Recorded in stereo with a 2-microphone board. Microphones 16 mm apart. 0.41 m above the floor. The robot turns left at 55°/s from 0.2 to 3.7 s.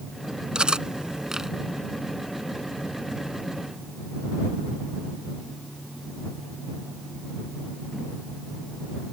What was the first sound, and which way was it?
Cutlery clinking, 85° right.